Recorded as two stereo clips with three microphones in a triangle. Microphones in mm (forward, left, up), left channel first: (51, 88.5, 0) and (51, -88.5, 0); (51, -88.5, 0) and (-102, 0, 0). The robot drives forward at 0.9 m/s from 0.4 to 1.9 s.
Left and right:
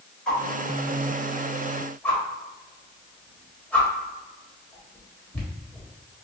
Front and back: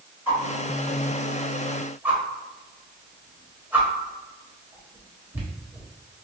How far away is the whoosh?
About 1.7 m.